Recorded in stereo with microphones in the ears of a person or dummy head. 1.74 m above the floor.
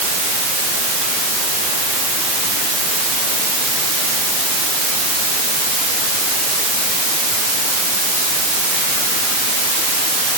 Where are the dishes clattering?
I don't hear dishes clattering.